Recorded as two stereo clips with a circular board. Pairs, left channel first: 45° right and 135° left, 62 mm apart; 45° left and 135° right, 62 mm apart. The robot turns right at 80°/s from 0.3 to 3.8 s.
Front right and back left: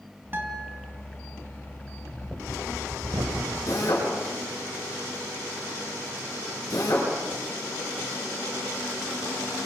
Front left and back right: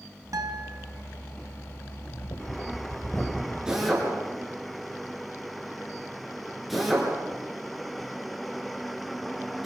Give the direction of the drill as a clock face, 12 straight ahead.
2 o'clock.